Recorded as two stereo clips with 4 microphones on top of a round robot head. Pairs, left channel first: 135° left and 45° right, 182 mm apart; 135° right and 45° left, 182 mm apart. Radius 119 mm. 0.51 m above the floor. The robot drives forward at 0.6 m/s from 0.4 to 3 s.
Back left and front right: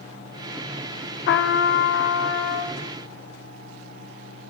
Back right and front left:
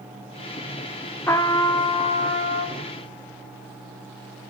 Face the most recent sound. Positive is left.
turn(degrees=170)